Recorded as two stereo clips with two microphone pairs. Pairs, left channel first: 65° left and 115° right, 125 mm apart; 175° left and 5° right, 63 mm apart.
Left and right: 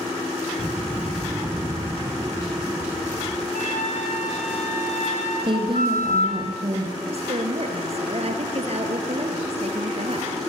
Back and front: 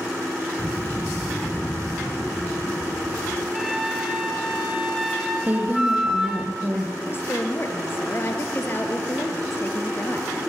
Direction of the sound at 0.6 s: 25° right.